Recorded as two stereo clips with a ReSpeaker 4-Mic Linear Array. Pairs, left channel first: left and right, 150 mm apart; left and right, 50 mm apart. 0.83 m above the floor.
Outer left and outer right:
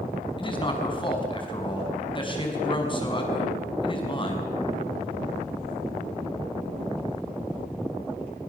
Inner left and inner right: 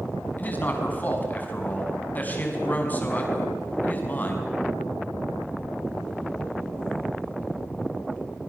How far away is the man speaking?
About 5.5 m.